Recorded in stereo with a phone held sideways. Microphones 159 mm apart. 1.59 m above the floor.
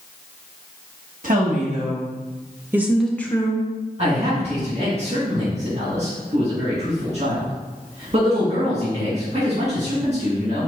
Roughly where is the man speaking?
Right.